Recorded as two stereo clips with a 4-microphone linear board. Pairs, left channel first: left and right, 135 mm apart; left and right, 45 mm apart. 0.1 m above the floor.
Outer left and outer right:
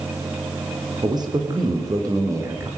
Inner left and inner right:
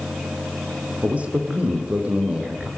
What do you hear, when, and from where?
1.0 s a man speaking: 30° right (ahead or behind), 4 m; by 2.7 s 20° right (ahead or behind), 5.5 m